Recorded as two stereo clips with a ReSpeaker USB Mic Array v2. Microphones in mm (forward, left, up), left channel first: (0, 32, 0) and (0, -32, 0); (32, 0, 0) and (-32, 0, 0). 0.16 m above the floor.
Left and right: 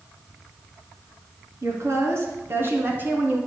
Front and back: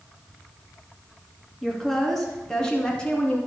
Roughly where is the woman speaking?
Right.